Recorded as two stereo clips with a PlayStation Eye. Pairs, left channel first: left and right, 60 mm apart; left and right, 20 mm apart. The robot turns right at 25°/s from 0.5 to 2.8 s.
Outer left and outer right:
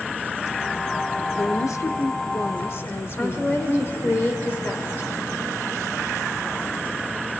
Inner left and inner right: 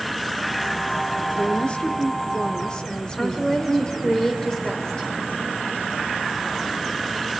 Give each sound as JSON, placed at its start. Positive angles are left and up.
{"t": 1.3, "sound": "a woman speaking", "azimuth_deg": 90, "distance_m": 1.2}
{"t": 3.2, "sound": "a woman speaking", "side_deg": 40, "distance_m": 2.0}